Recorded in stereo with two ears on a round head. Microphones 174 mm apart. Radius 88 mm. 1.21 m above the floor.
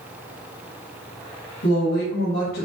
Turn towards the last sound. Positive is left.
turn(degrees=60)  # may be behind; listen again after turning